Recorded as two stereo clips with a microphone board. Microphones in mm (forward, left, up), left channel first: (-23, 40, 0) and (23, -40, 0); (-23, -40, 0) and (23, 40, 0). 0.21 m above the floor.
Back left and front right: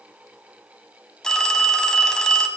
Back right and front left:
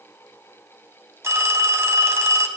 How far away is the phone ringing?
About 0.8 m.